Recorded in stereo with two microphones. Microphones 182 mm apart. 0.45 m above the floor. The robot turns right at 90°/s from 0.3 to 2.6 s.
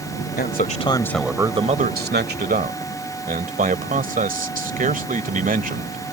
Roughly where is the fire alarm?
I don't hear a fire alarm.